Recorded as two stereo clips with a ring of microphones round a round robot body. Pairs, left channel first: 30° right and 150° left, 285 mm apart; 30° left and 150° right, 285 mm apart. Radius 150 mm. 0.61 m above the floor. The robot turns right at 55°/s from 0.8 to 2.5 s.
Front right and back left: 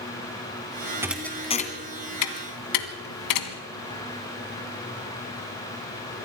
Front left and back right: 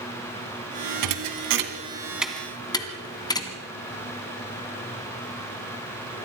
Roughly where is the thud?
Behind right.